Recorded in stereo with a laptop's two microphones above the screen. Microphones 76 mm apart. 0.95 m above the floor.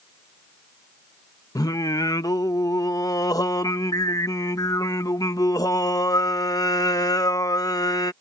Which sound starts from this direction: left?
Singing, at 1.6 s.